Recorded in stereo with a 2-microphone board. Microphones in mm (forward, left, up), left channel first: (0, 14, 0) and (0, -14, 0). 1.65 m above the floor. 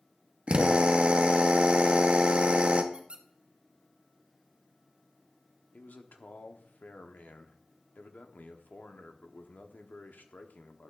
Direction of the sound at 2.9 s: 40° right (ahead or behind).